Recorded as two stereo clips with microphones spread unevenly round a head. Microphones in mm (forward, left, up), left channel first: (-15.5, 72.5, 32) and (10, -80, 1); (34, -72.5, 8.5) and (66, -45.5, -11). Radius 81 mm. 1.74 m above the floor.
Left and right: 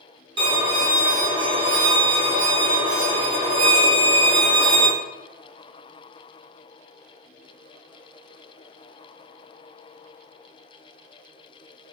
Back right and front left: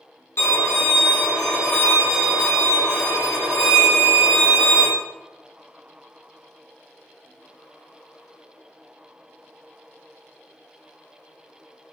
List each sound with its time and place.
0.4 s a violin: 140° right, 0.9 m